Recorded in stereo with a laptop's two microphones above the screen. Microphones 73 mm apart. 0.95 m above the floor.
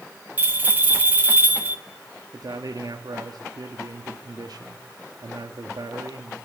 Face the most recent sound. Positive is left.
turn(degrees=-65)  # may be behind; listen again after turning